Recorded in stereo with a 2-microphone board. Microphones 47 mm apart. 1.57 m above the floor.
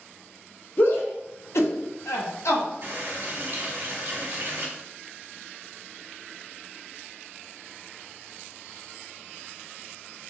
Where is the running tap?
50° right (ahead or behind), 1.8 m.